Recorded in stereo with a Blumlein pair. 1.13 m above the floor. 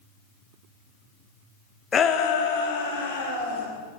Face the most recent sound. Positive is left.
turn(degrees=70)